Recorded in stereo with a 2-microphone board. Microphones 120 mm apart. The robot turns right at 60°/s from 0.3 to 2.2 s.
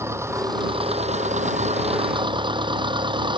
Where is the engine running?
155° right; by 3.4 s 45° right.